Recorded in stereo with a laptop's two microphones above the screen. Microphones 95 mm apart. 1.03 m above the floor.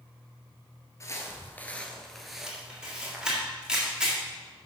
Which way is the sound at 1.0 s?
35° left (ahead or behind).